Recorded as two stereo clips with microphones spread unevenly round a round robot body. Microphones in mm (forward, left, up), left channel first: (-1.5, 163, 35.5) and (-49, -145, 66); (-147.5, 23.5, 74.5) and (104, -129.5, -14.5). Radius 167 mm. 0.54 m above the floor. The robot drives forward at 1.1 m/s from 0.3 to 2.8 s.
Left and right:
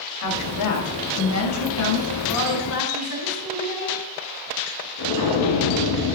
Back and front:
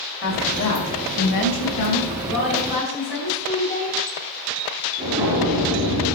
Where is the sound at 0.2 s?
90° left, 3 m; by 2.2 s 125° left, 3.5 m.